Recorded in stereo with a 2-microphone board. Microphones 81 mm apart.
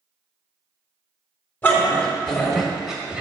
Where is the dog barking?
25° left (ahead or behind), 1.7 m; by 3.2 s 10° right (ahead or behind), 1.8 m.